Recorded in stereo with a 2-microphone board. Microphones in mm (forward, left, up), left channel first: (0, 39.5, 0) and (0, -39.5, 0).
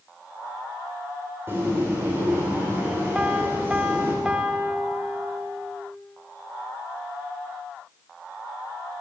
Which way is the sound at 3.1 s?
15° right (ahead or behind).